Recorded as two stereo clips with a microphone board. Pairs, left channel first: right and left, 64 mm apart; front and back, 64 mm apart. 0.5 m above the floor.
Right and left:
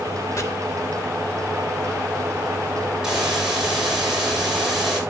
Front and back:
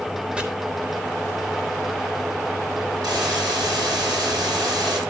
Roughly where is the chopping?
Right.